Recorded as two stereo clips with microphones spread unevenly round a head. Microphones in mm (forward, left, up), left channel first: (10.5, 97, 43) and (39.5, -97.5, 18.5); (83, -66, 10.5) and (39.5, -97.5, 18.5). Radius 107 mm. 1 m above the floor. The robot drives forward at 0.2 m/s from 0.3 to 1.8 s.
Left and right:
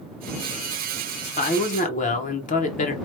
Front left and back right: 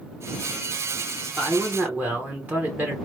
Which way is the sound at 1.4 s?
140° left.